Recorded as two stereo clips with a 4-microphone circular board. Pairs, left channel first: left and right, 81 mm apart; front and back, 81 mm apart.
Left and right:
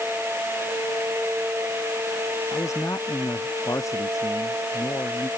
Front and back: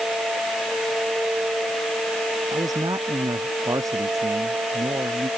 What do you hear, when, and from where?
2.5 s a man speaking: 140° left; by 5.3 s 135° left